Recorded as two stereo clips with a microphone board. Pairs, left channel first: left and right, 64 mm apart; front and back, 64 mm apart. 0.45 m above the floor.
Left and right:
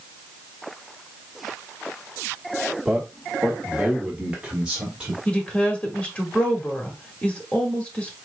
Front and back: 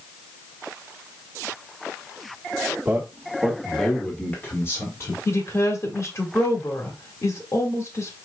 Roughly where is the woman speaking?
Ahead left.